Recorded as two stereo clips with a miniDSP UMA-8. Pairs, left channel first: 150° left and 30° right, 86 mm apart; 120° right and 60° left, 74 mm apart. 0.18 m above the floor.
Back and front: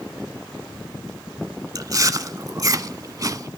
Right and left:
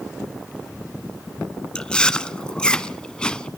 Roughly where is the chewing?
Ahead right.